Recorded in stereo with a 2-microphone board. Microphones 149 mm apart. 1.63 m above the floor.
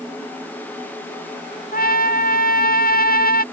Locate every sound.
1.7 s a trumpet: 75° left (ahead or behind)